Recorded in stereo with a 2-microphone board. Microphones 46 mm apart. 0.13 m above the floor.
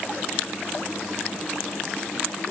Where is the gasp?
I don't hear a gasp.